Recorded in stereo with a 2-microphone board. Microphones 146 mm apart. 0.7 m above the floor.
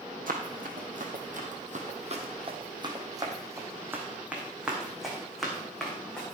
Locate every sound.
0.3 s running footsteps: 70° right (ahead or behind), 2 m; by 6.3 s 5° left (ahead or behind), 4 m